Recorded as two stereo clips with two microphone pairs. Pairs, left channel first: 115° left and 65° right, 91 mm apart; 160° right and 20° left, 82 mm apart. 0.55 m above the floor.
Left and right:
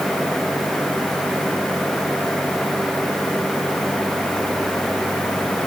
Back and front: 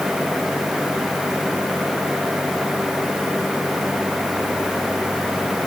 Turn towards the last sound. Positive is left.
No sound to turn to.